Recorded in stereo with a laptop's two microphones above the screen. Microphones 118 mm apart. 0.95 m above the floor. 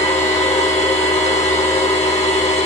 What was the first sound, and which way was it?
A machine running, 75° left (ahead or behind).